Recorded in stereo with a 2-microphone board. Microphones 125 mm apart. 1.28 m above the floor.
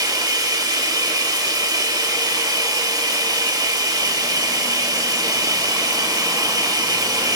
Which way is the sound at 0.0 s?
30° right (ahead or behind).